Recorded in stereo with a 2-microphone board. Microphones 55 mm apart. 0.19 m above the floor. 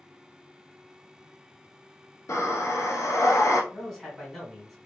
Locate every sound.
2.3 s breathing: 75° left (ahead or behind), 0.9 m
3.7 s a man speaking: 5° left (ahead or behind), 1.6 m